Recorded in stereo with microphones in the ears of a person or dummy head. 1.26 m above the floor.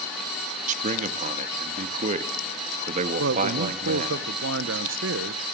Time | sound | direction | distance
0.7 | a man speaking | 45° right (ahead or behind) | 1.7 m
3.2 | a man speaking | 60° right (ahead or behind) | 1.0 m